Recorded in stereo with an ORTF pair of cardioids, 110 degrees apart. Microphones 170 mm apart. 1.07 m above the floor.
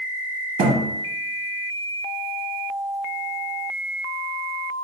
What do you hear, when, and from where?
0.6 s a thud: 65° right, 1.0 m